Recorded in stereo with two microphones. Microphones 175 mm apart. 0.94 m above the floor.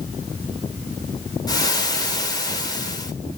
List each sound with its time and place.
1.5 s frying: 20° left (ahead or behind), 3.5 m